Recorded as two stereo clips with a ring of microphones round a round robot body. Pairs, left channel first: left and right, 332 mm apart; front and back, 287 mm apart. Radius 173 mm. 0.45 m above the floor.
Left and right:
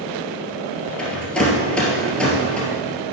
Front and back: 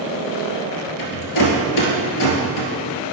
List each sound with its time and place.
1.0 s a rattle: 5° left, 2.0 m